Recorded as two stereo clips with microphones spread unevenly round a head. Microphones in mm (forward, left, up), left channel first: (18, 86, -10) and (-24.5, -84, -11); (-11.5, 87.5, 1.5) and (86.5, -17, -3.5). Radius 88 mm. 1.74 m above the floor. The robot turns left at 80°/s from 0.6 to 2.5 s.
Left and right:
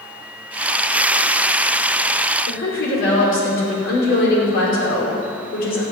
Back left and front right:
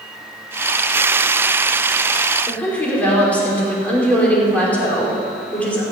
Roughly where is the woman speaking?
Ahead left.